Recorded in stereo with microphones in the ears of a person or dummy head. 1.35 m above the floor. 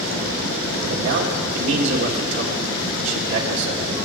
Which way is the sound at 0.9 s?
70° right (ahead or behind).